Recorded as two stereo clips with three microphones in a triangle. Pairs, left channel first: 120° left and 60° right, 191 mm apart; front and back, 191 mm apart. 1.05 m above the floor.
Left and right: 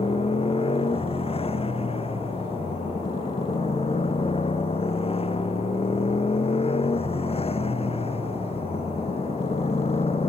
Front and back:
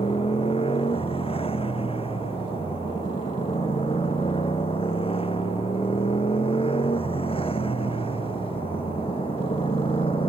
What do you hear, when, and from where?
0.0 s a motorcycle: 60° left